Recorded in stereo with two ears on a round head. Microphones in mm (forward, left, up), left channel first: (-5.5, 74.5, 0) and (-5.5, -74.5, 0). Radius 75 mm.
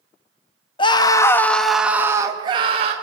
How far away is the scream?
About 1.1 m.